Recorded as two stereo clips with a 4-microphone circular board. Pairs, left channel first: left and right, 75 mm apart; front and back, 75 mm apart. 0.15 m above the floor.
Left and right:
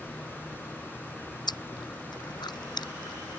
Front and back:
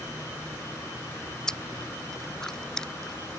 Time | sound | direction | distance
1.5 | chewing | 80° left | ?